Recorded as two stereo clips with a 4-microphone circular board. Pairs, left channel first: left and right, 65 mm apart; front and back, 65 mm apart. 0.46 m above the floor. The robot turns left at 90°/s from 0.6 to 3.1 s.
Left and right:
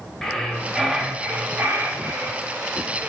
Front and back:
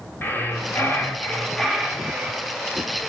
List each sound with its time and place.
0.2 s breathing: 15° left, 1.0 m; by 2.4 s 150° right, 1.0 m